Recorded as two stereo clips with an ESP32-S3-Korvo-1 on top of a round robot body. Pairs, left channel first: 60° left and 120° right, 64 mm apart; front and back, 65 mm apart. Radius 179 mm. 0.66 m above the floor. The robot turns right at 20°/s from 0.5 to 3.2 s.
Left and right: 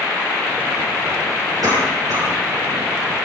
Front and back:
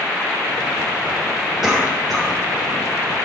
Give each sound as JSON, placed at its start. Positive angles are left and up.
{"t": 1.6, "sound": "a cough", "azimuth_deg": -95, "distance_m": 7.0}